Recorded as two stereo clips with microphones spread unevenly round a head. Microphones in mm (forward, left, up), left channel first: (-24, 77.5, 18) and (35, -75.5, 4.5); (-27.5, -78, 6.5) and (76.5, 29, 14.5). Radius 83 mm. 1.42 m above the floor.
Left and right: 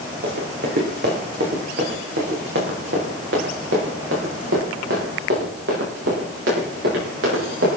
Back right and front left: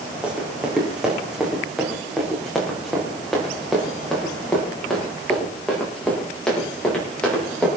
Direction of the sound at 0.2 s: 35° right.